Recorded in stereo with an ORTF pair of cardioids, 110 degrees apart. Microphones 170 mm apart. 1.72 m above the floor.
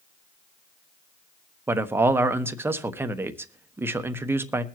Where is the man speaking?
15° right, 1.3 m.